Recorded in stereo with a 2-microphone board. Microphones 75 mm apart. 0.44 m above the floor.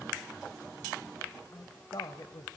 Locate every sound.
1.5 s a woman speaking: 55° left (ahead or behind), 1.7 m